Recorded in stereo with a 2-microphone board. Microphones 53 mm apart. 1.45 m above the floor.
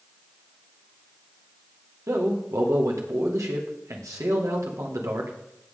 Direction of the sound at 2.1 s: 75° right (ahead or behind).